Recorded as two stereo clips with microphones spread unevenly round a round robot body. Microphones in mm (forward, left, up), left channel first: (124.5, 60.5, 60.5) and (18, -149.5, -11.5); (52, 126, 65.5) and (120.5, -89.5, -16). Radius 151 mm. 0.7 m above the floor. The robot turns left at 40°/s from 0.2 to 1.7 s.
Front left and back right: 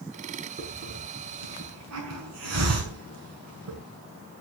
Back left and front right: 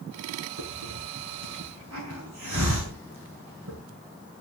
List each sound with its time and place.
0.6 s a hiss: 65° right, 5.5 m; by 3.8 s 110° right, 5.5 m